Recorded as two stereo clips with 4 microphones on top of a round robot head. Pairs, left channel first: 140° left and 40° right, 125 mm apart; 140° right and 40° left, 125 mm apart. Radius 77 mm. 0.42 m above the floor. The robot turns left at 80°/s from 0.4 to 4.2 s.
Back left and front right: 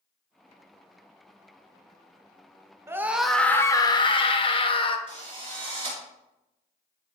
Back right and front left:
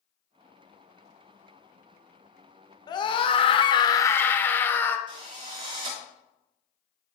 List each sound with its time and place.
2.9 s a scream: 100° right, 1.3 m; by 5.0 s 155° left, 1.3 m
5.1 s a drill: 10° left, 5 m